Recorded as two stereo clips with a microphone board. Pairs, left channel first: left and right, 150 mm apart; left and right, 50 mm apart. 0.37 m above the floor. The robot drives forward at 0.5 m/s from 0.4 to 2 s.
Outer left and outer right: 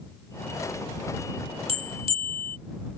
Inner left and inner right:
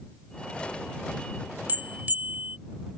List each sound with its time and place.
1.7 s a bell: 40° right (ahead or behind); by 2.6 s 35° right (ahead or behind)